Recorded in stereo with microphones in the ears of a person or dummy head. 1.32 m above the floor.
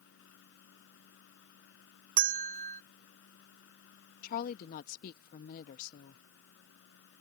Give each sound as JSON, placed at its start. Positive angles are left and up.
{"t": 0.0, "sound": "a fan", "side_deg": 65}
{"t": 2.2, "sound": "a bell", "side_deg": -50}
{"t": 4.2, "sound": "a woman speaking", "side_deg": 50}